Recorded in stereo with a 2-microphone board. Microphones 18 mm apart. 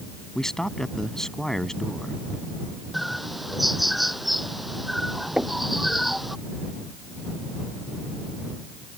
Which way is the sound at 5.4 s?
80° right.